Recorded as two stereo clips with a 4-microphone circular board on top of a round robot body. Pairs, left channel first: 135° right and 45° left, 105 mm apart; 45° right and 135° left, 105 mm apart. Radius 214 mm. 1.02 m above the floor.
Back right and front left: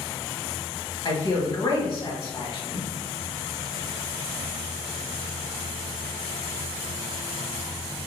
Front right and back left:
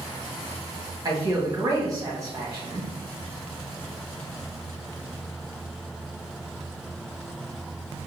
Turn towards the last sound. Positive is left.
turn(degrees=-170)